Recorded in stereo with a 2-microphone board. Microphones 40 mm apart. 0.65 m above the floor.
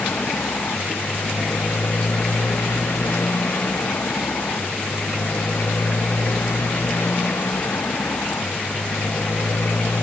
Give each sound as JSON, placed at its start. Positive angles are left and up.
{"t": 0.0, "sound": "a motorcycle", "side_deg": 60}